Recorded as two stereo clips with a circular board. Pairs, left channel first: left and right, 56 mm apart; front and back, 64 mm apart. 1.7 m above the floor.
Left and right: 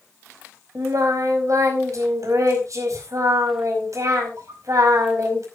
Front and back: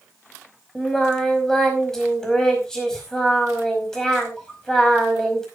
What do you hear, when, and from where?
0.8 s singing: 80° right, 5 m